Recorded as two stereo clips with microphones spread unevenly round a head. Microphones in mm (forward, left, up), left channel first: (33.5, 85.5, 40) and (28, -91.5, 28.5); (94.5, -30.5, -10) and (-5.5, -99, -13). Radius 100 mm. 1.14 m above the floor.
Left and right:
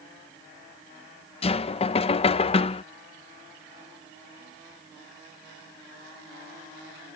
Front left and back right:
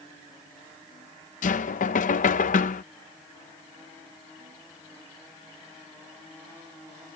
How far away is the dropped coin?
No dropped coin in this recording.